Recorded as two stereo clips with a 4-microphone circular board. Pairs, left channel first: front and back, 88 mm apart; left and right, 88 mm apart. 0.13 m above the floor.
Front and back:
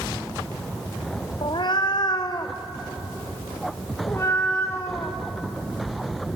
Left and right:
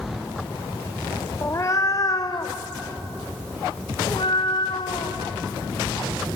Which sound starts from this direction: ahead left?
A cat meowing, at 1.4 s.